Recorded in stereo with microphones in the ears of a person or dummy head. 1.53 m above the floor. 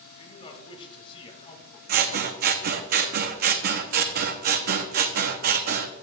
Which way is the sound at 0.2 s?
30° left (ahead or behind).